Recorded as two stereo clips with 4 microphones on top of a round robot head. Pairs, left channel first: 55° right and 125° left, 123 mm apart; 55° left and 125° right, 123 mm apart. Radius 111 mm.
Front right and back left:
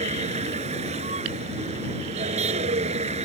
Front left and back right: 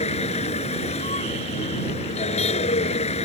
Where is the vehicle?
90° left.